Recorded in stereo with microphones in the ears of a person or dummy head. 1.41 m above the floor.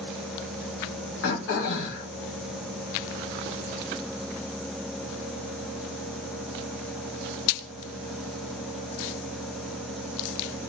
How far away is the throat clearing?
About 0.9 m.